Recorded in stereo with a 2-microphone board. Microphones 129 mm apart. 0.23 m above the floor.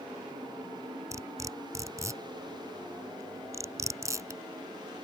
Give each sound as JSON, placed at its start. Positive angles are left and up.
{"t": 1.1, "sound": "cutlery clinking", "side_deg": -25}